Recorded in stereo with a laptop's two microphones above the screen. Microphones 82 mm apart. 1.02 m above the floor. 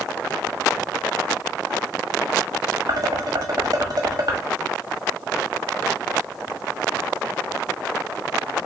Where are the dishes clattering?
55° right (ahead or behind), 0.9 m.